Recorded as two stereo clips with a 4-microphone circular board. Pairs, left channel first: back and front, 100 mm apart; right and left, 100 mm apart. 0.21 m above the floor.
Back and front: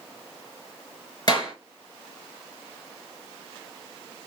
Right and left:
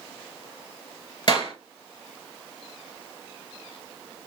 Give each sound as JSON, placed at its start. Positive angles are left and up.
{"t": 1.3, "sound": "a clap", "azimuth_deg": -130, "distance_m": 2.5}